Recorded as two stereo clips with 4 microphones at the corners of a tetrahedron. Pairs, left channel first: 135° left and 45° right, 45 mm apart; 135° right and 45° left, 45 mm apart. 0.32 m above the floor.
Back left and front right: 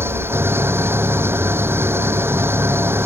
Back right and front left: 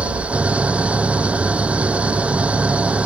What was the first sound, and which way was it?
An engine running, 15° right.